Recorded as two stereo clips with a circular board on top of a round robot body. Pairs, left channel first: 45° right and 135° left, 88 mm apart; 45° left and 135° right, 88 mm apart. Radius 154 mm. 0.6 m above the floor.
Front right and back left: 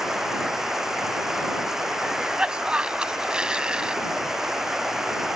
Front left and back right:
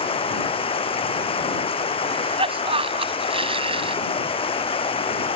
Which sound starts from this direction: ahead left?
Running water, at 0.0 s.